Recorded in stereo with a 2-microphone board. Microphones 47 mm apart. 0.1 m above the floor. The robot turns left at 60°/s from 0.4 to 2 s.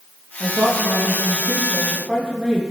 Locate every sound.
0.4 s a woman speaking: 75° right, 3.5 m; by 2.6 s 170° right, 3.5 m